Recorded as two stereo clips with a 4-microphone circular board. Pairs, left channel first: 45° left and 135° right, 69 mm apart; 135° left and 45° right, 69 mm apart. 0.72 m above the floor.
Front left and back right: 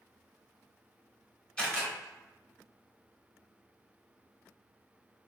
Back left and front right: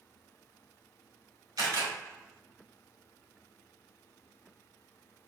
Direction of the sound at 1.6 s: 30° right.